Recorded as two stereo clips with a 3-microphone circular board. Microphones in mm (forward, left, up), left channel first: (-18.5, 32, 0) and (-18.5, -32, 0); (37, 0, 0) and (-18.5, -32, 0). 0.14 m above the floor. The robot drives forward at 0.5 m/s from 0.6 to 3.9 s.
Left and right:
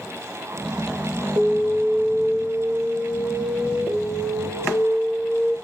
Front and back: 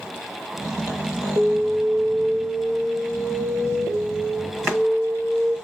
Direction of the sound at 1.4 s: 110° right.